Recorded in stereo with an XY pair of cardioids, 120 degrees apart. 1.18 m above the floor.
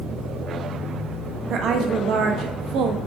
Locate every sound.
1.5 s a woman speaking: 60° right, 1.1 m